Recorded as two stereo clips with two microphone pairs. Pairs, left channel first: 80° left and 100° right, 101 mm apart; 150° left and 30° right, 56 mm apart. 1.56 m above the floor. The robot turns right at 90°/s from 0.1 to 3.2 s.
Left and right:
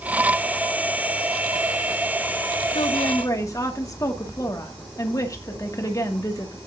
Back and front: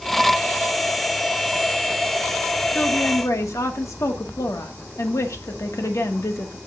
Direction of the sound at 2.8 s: 95° left.